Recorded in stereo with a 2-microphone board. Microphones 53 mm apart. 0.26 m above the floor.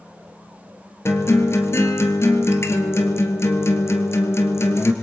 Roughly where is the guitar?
Left.